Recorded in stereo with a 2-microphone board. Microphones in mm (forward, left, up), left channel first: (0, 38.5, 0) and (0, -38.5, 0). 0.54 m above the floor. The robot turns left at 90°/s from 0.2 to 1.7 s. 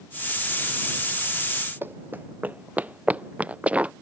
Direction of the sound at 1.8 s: 25° right (ahead or behind).